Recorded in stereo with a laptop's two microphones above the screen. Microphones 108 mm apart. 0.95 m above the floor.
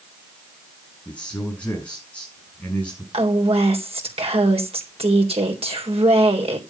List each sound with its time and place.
1.1 s a man speaking: 10° left (ahead or behind), 6 m
3.1 s a woman speaking: 65° right (ahead or behind), 3.5 m